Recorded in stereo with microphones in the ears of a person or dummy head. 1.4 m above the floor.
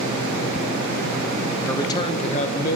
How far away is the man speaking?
About 0.7 m.